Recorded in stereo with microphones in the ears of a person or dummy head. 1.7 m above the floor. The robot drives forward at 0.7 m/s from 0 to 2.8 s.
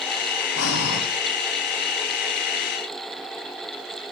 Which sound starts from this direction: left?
Breathing, at 0.6 s.